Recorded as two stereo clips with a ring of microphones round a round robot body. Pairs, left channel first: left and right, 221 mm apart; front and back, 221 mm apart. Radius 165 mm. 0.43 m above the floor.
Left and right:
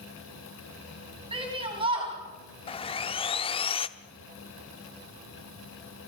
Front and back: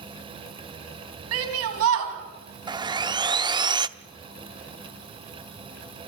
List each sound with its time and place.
1.3 s a shout: 160° right, 3.5 m
2.7 s sawing: 125° left, 0.7 m